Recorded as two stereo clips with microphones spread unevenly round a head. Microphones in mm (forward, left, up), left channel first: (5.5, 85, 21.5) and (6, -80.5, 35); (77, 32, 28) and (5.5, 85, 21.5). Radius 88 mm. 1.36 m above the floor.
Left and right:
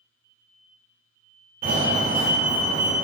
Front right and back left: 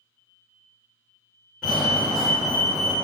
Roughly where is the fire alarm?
Behind right.